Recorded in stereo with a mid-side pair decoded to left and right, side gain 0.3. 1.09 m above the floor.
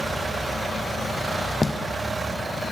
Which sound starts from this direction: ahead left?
Footsteps, at 1.6 s.